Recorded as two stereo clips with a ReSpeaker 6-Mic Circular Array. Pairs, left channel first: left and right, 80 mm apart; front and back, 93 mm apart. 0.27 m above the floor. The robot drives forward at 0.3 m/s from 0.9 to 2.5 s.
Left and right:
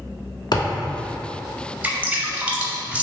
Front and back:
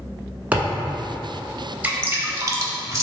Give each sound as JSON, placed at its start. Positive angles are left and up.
{"t": 0.5, "sound": "a thud", "azimuth_deg": 105, "distance_m": 0.9}
{"t": 1.8, "sound": "dripping", "azimuth_deg": -130, "distance_m": 0.5}